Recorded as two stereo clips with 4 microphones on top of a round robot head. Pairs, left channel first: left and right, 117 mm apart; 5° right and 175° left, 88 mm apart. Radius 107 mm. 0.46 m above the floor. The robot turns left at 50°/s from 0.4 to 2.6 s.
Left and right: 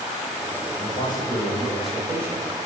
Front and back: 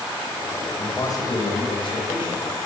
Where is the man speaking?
50° left, 3 m; by 2.5 s 30° right, 3 m.